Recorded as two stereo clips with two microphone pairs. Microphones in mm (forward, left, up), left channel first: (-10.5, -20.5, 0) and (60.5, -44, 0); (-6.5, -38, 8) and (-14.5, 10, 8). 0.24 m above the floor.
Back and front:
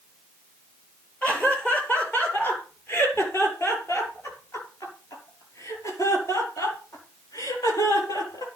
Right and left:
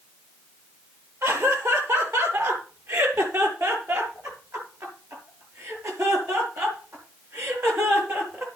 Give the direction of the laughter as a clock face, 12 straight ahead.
9 o'clock.